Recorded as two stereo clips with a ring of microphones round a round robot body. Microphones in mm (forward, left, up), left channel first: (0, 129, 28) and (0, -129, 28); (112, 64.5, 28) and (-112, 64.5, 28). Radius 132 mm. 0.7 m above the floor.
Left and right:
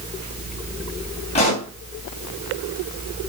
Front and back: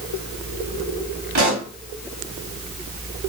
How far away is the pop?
About 3 m.